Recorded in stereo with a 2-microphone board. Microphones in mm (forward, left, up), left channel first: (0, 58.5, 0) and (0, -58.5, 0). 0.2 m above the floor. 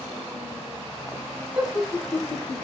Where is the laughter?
10° right (ahead or behind), 1.2 m; by 2.6 s 15° left (ahead or behind), 1.2 m.